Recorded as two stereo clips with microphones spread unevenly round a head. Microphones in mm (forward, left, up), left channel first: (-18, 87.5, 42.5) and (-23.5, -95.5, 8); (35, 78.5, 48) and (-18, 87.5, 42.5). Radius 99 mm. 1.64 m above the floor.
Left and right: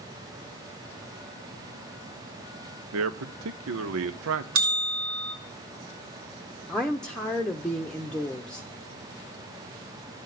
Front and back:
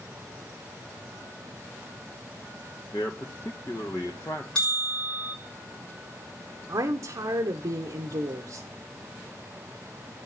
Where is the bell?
90° right, 3.5 m.